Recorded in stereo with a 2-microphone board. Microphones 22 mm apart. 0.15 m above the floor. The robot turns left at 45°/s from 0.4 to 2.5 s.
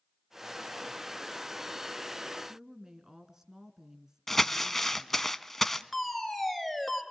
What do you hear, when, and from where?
2.5 s a woman speaking: 25° right (ahead or behind), 1.8 m
4.3 s crumpling: 15° left (ahead or behind), 1.0 m
5.9 s a fire alarm: 5° right (ahead or behind), 3.5 m